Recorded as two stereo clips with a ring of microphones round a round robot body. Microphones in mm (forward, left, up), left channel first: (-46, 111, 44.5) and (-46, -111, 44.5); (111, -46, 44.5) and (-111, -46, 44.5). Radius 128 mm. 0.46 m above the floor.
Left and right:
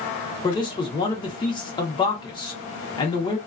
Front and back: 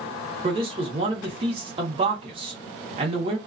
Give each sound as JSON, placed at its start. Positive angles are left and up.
{"t": 0.4, "sound": "a man speaking", "azimuth_deg": 140, "distance_m": 0.9}